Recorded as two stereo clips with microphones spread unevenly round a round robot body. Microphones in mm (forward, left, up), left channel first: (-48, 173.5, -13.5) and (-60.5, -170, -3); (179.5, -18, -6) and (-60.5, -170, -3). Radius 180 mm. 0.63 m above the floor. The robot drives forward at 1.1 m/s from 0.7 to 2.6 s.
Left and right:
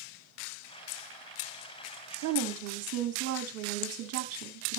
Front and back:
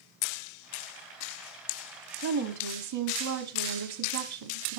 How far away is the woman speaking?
About 1.2 m.